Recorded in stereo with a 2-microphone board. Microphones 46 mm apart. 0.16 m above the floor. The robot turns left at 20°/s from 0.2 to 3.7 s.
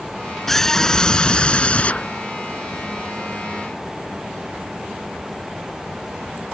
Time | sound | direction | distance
0.5 | a scream | 170° left | ?